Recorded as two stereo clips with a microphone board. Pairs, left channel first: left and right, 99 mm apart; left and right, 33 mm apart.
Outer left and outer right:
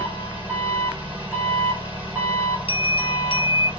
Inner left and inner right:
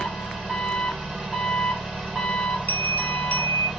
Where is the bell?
75° left (ahead or behind), 1.0 m.